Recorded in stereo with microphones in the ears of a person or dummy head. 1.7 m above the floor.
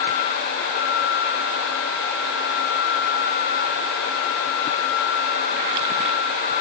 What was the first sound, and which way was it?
Only background noise.